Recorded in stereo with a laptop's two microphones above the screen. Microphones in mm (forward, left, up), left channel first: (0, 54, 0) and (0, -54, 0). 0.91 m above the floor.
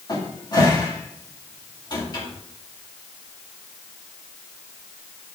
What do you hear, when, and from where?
0.1 s a cupboard door: 40° left (ahead or behind), 2 m